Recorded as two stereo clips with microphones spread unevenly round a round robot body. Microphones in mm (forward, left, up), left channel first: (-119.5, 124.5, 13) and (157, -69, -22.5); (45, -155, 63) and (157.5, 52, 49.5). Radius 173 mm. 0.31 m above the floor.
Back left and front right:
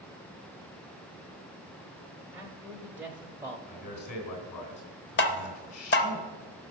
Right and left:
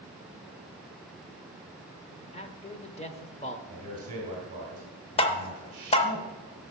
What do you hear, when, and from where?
2.3 s a man speaking: 100° right, 0.9 m
3.7 s a man speaking: 120° left, 3 m
5.2 s tapping: 170° right, 0.6 m